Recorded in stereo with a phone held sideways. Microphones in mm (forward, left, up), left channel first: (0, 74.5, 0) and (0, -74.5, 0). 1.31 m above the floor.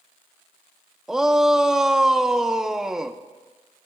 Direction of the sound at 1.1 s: 5° right (ahead or behind).